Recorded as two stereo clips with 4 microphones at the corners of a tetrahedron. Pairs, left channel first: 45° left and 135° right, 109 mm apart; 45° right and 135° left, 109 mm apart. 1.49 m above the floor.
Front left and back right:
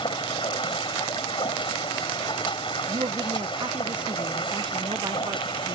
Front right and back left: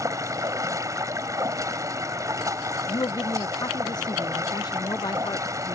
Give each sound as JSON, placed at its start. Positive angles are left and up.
{"t": 0.0, "sound": "running water", "azimuth_deg": 80}
{"t": 2.9, "sound": "a woman speaking", "azimuth_deg": -95}